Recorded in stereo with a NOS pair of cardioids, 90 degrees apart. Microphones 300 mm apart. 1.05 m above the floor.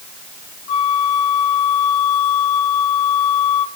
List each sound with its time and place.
0.7 s a flute: 55° left, 1.3 m